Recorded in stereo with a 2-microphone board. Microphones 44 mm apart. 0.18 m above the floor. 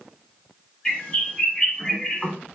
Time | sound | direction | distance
0.8 | a bird | 15° left (ahead or behind) | 1.6 m